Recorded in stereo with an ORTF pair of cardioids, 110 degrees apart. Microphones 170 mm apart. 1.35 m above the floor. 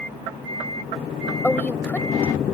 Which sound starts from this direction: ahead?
A woman speaking, at 1.4 s.